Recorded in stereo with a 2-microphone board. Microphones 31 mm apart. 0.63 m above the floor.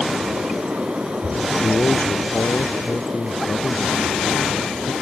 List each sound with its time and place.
1.5 s a man speaking: 75° left (ahead or behind)